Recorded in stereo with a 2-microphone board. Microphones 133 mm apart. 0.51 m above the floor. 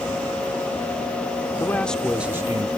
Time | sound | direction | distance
1.6 | a man speaking | 20° left (ahead or behind) | ?